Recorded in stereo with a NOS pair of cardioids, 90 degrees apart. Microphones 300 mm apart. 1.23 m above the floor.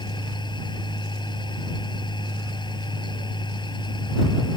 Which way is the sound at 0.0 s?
15° left.